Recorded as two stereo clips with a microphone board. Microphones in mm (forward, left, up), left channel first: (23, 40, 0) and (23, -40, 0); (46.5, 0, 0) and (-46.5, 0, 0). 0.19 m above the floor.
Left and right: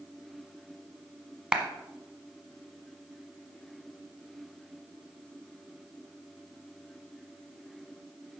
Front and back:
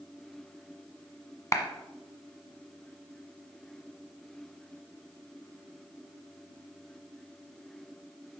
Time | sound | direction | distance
1.5 | a clap | 20° right | 1.2 m